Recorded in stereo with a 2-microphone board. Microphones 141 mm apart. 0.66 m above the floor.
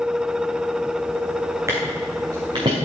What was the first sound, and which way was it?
Footsteps, 20° right (ahead or behind).